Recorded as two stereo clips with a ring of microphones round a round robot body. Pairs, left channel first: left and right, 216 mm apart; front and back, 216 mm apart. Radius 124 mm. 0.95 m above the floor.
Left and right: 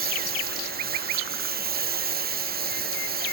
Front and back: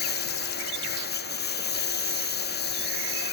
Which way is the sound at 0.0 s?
45° right.